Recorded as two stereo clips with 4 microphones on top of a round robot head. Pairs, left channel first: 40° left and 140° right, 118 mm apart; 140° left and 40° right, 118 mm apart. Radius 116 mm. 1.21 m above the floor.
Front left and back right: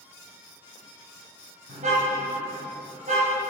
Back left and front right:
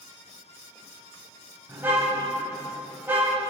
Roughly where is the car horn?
Behind right.